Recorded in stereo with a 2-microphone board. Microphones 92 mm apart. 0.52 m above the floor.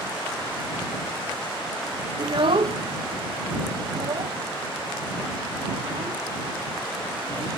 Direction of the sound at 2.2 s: 50° right (ahead or behind).